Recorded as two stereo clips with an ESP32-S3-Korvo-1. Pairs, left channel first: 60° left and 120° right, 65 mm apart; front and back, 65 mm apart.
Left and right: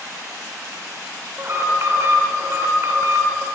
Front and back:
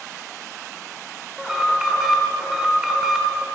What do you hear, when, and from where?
1.4 s an alarm: 100° right, 1.4 m